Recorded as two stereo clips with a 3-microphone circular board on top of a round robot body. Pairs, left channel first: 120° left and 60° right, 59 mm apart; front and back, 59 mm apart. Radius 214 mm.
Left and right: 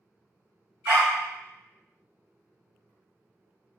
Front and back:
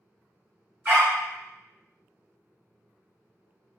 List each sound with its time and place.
0.8 s a dog barking: 120° right, 0.6 m